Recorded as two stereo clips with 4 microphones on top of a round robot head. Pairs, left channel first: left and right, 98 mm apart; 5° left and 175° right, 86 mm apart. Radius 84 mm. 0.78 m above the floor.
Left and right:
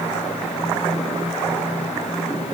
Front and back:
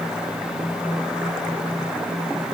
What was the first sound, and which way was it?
Only background noise.